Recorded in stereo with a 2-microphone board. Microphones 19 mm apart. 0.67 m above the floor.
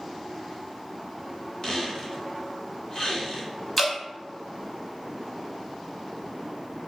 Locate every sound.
1.6 s a squeak: 40° left (ahead or behind), 1.4 m
3.8 s dripping: 10° left (ahead or behind), 0.8 m